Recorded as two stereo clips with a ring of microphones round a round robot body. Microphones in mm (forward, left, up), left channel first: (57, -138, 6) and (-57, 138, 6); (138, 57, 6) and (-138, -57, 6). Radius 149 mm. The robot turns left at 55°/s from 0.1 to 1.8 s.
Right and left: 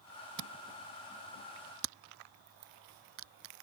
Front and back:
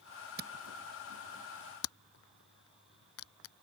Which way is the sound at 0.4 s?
145° left.